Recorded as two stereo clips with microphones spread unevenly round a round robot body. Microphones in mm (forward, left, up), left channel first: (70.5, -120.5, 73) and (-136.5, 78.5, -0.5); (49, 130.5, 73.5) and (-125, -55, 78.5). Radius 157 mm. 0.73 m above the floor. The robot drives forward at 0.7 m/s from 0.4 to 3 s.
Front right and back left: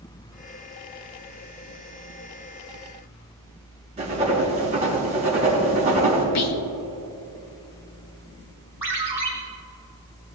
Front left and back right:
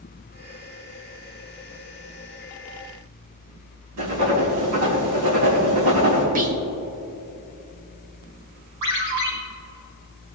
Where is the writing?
155° right, 4 m.